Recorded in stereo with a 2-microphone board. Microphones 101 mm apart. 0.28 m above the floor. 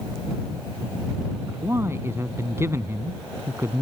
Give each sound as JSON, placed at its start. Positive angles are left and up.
{"t": 1.5, "sound": "a man speaking", "side_deg": -25}